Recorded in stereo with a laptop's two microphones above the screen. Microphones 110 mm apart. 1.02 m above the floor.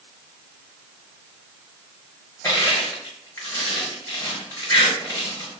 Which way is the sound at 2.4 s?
25° left (ahead or behind).